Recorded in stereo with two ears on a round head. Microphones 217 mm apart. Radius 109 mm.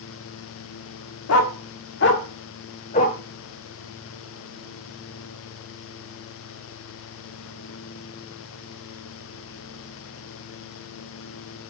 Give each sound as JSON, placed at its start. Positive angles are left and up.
{"t": 1.3, "sound": "a dog barking", "side_deg": 65, "distance_m": 1.3}